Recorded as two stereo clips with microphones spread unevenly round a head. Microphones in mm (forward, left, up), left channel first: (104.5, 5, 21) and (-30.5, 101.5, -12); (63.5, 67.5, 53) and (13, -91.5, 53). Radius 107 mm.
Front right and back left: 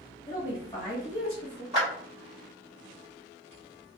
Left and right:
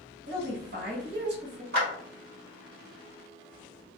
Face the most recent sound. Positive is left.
turn(degrees=-140)